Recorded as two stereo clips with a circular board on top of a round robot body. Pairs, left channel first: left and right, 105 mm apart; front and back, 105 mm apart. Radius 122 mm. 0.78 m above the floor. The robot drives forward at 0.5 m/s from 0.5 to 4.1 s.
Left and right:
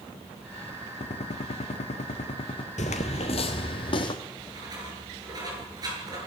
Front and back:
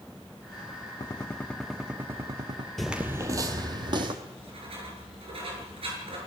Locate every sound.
1.0 s a gunshot: 60° left, 0.7 m; by 2.7 s 130° left, 0.8 m
2.8 s footsteps: 90° left, 0.9 m; by 4.2 s 135° left, 1.9 m
4.2 s writing: 145° right, 7.5 m